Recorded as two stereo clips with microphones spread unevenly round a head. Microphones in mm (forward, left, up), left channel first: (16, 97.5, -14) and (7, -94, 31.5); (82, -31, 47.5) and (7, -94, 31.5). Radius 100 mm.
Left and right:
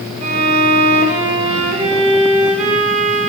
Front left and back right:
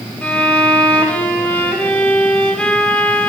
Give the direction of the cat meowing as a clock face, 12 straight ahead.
No cat meowing in this recording.